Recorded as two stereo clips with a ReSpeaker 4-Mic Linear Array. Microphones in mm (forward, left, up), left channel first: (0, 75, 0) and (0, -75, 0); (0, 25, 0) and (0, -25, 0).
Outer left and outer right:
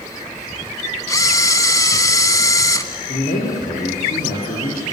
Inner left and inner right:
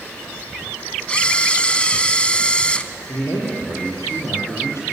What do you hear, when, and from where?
1.1 s a camera shutter: 25° left (ahead or behind), 0.8 m
3.1 s a man speaking: 75° left (ahead or behind), 6 m